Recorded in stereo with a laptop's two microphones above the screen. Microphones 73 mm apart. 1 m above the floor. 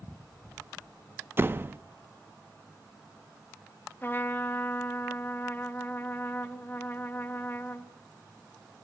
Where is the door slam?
30° right (ahead or behind), 0.6 m.